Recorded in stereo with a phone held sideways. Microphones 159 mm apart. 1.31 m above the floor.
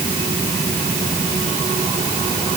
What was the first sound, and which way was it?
Only background noise.